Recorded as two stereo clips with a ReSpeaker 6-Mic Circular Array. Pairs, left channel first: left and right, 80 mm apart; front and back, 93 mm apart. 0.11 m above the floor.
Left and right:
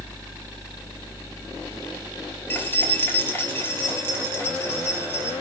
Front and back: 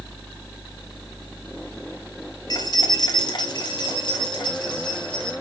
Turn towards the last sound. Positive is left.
turn(degrees=30)